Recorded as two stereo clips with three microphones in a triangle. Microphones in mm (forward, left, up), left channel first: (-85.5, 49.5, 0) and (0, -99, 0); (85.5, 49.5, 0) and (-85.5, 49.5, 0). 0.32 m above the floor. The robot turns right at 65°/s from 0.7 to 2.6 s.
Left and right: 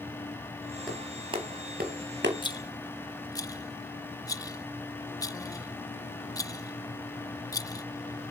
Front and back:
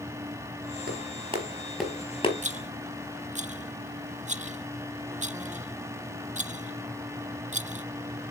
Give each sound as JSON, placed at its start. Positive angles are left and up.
{"t": 0.9, "sound": "a clap", "azimuth_deg": -150, "distance_m": 4.5}
{"t": 2.4, "sound": "a rattle", "azimuth_deg": 170, "distance_m": 0.6}